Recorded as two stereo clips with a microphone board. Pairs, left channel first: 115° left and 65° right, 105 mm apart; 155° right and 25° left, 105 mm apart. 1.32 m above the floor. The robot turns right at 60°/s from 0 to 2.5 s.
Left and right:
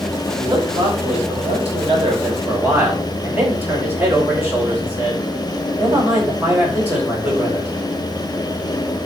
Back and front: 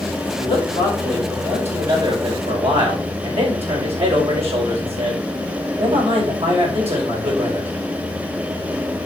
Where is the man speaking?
125° right, 5.5 m; by 7.7 s 5° left, 5.5 m.